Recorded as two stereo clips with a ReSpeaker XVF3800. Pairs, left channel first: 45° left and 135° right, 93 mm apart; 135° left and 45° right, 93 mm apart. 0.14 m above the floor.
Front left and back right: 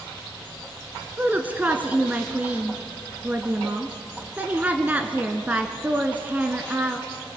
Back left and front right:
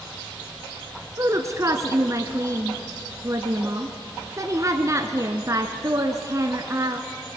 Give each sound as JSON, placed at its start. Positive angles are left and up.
{"t": 1.2, "sound": "a woman speaking", "azimuth_deg": -75, "distance_m": 1.3}